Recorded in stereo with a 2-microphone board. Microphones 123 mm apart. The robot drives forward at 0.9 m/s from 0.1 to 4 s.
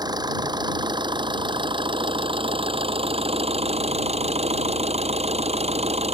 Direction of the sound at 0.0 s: 35° right (ahead or behind).